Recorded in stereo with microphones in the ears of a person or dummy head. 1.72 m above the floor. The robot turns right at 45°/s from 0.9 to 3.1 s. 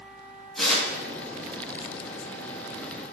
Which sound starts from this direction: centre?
Tearing paper, at 0.6 s.